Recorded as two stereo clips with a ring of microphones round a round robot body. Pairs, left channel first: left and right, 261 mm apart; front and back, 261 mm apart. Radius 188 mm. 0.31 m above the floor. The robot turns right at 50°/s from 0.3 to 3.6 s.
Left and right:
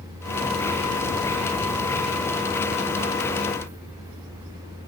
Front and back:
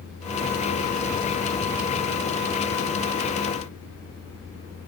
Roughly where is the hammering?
No hammering in this recording.